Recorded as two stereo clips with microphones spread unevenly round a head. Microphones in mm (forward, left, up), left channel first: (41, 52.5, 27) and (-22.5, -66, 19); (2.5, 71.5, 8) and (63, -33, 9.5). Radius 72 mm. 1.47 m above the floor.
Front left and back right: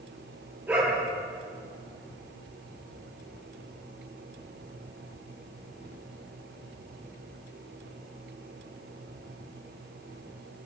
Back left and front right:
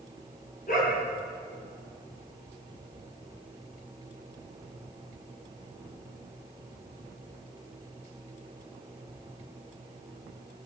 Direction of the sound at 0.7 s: 165° left.